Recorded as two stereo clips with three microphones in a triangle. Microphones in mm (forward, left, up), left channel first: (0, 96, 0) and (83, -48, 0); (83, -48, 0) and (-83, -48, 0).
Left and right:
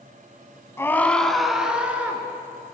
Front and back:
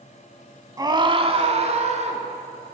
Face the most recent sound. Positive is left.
turn(degrees=-140)